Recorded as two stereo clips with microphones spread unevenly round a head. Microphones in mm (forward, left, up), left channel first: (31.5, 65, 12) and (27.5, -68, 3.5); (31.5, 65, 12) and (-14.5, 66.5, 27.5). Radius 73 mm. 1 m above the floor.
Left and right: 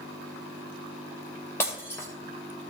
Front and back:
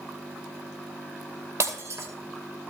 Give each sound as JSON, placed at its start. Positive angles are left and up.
{"t": 1.6, "sound": "breaking glass", "azimuth_deg": 165, "distance_m": 2.5}